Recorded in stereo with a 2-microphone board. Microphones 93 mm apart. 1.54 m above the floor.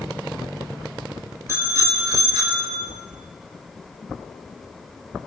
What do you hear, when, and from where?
1.5 s a bicycle bell: 30° right (ahead or behind), 5 m; by 2.9 s 50° right (ahead or behind), 4 m